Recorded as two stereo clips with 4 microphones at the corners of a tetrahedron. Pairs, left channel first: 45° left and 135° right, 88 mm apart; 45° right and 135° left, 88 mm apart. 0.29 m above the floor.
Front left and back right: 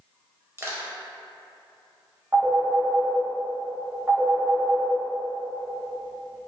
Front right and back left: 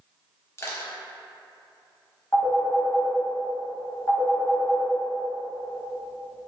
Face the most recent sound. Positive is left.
turn(degrees=-80)